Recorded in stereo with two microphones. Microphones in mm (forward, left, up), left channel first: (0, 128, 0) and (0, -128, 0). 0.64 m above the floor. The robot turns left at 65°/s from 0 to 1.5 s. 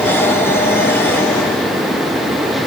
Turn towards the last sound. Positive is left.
No sound to turn to.